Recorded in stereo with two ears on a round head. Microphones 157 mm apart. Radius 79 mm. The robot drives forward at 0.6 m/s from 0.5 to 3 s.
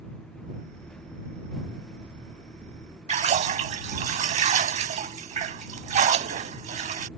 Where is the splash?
40° right (ahead or behind).